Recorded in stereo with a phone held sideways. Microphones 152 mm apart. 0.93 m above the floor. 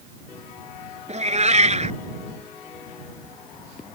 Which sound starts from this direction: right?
A cat meowing, at 1.1 s.